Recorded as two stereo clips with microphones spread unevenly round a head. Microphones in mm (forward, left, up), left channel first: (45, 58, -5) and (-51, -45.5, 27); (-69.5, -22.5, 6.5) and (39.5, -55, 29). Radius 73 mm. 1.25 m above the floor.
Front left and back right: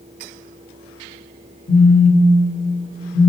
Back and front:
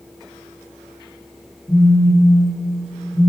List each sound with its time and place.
1.7 s a phone buzzing: 95° left, 1.8 m